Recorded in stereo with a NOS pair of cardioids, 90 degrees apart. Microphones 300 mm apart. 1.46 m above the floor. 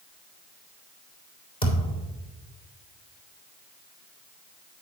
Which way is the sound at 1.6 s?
20° left.